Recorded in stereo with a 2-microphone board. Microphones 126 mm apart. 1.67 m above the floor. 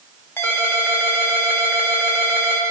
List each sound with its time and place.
0.4 s a ringtone: 20° left (ahead or behind), 2.5 m